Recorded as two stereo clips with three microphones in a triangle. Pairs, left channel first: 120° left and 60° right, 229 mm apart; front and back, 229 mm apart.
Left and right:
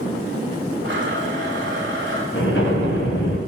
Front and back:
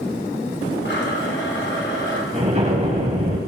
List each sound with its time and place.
0.8 s a blender: 30° right, 2 m
2.3 s an explosion: 125° left, 2.5 m